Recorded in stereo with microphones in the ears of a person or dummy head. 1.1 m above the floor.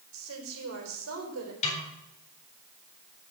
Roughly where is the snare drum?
Left.